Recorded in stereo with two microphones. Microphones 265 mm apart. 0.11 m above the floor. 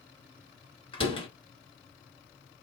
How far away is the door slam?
About 1.3 m.